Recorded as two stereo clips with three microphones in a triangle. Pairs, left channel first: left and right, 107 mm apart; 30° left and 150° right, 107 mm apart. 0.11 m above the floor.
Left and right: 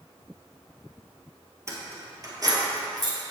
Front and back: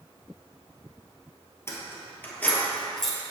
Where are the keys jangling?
30° right, 2.0 m; by 3.2 s 60° right, 1.8 m.